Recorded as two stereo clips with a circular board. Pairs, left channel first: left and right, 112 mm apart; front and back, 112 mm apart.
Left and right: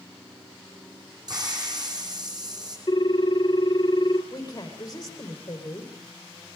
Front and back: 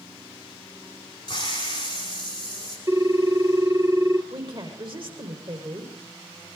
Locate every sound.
1.3 s a hiss: 45° right, 7 m
2.9 s a ringtone: 125° left, 1.0 m
4.3 s a woman speaking: 140° left, 5.5 m